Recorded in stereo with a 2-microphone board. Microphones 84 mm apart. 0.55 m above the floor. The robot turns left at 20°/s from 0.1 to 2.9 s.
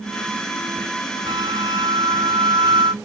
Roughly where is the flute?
Ahead right.